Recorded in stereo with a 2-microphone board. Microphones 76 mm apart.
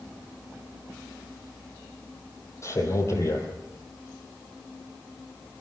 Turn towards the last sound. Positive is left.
turn(degrees=35)  # may be behind; listen again after turning